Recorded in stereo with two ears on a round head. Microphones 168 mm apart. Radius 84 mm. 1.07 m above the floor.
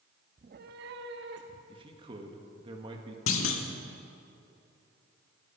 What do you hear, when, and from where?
0.4 s a cat meowing: 35° right (ahead or behind), 0.5 m; by 1.6 s 60° right (ahead or behind), 1.8 m
1.7 s a man speaking: 25° right (ahead or behind), 1.7 m
3.3 s a clunk: 85° left, 1.6 m